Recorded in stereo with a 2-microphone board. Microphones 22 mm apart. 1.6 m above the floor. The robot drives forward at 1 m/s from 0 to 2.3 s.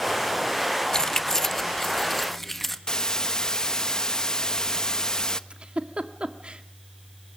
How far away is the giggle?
About 1.8 m.